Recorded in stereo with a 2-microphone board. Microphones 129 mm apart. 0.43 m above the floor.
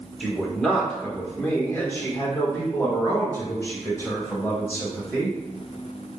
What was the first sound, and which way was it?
A man speaking, centre (ahead or behind).